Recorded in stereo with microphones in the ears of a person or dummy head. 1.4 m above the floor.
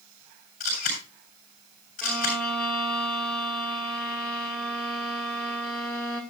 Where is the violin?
10° left (ahead or behind), 2.5 m.